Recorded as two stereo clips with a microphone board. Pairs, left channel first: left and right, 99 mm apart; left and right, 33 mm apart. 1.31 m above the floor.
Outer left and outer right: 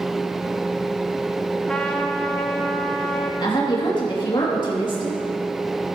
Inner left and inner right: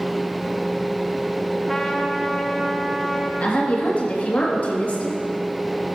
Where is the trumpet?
10° left (ahead or behind), 1.0 m.